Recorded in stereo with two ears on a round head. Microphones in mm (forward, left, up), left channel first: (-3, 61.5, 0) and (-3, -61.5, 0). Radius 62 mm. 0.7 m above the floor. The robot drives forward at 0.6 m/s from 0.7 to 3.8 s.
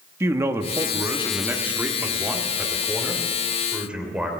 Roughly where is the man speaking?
Centre.